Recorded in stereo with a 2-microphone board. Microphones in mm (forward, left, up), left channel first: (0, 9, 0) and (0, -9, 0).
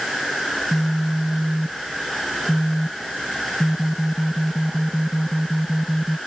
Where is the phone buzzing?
35° right (ahead or behind).